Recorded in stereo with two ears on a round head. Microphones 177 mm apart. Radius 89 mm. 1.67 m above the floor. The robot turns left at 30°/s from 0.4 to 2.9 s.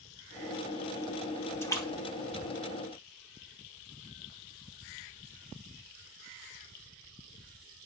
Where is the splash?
15° left (ahead or behind), 3 m; by 3.5 s 50° left (ahead or behind), 3 m.